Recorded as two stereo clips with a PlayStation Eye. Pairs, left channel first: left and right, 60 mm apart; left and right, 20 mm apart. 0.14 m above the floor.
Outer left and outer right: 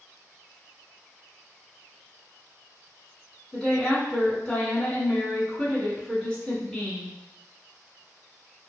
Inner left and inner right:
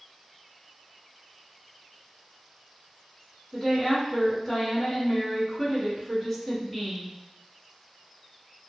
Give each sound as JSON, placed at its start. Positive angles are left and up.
{"t": 3.5, "sound": "a woman speaking", "side_deg": 15, "distance_m": 1.3}